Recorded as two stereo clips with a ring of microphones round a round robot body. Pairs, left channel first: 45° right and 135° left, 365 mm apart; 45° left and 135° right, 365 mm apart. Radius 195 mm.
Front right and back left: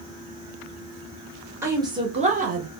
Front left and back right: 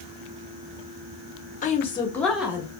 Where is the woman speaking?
60° left, 1.1 m; by 2.7 s 155° left, 1.1 m.